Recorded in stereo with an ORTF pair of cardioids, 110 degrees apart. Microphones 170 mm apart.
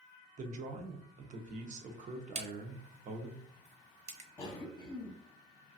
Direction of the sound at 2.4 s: 40° right.